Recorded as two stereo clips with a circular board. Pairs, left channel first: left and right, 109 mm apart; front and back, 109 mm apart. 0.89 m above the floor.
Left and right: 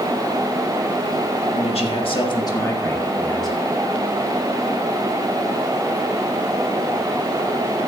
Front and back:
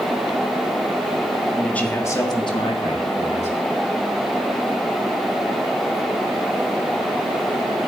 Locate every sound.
1.5 s a man speaking: 85° left, 1.9 m; by 3.6 s straight ahead, 2.5 m